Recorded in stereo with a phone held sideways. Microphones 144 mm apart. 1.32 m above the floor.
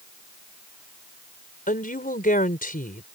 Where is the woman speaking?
85° left.